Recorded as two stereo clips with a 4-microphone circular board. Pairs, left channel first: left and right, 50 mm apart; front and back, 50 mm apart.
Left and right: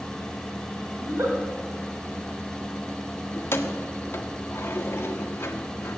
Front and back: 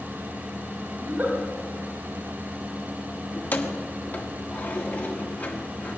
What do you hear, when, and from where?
1.0 s a giggle: 125° right, 3.5 m
3.3 s keys jangling: 55° left, 1.4 m